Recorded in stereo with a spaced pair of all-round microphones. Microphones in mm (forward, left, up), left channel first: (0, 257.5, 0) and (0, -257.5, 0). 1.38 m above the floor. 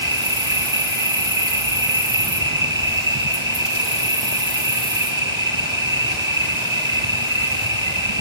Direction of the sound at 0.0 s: 60° right (ahead or behind).